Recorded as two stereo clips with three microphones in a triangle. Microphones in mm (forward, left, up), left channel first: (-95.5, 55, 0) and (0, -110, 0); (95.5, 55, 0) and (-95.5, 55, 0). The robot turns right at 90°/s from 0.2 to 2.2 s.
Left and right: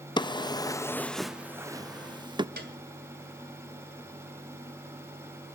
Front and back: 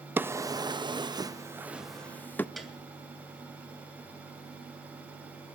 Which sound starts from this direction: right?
A piano, at 2.6 s.